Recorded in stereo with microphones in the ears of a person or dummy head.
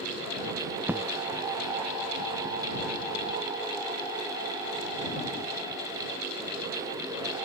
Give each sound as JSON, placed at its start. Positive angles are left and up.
{"t": 0.9, "sound": "an explosion", "side_deg": -15}